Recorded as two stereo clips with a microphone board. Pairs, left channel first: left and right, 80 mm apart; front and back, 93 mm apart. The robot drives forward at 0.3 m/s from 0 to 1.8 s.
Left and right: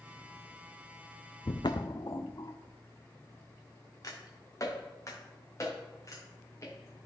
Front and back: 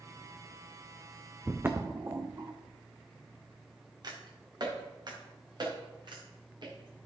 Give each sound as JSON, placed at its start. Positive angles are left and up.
{"t": 1.4, "sound": "footsteps", "azimuth_deg": 105, "distance_m": 0.8}